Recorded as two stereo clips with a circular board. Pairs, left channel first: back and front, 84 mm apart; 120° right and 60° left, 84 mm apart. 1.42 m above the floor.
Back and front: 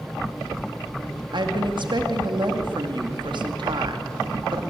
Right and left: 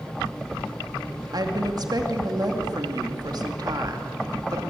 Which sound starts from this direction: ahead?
A woman speaking, at 1.3 s.